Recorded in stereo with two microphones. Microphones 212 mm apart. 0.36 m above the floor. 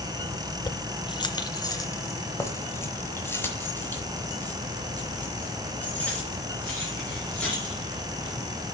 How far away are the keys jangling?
About 0.5 m.